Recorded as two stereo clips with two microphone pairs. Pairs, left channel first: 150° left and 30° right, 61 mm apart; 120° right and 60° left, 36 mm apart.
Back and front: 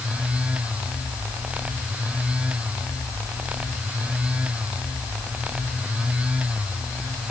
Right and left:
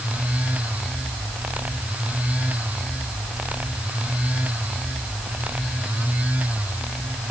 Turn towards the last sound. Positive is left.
No sound to turn to.